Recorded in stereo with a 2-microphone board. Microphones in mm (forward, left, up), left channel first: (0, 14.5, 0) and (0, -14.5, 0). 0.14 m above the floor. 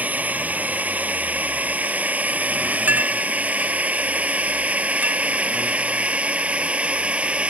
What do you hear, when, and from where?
0.0 s a drone: 65° right (ahead or behind); by 7.5 s 45° right (ahead or behind)
2.9 s a clink: 85° right